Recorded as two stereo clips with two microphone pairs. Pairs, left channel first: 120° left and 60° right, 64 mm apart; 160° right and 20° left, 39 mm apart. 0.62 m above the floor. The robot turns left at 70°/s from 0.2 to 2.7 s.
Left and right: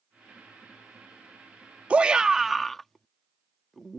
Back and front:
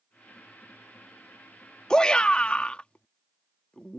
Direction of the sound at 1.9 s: 110° right.